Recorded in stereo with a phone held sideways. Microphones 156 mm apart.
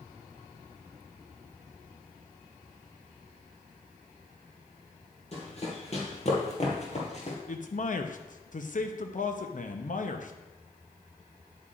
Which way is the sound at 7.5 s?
55° left (ahead or behind).